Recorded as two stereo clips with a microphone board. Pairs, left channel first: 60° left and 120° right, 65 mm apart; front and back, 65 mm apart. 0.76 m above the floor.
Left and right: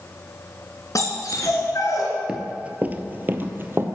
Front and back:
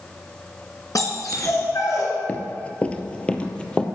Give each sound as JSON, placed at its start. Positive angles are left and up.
{"t": 0.9, "sound": "a dog barking", "azimuth_deg": 30, "distance_m": 2.5}
{"t": 2.3, "sound": "running footsteps", "azimuth_deg": -50, "distance_m": 0.8}